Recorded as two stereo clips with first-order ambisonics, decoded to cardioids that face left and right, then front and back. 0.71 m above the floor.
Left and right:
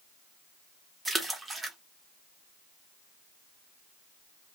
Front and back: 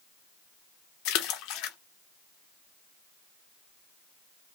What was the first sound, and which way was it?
A splash, 10° right.